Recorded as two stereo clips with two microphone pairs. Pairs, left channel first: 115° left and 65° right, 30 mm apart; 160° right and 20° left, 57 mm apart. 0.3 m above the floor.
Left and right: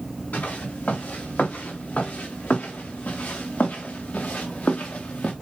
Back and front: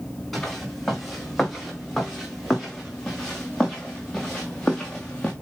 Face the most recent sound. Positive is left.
turn(degrees=125)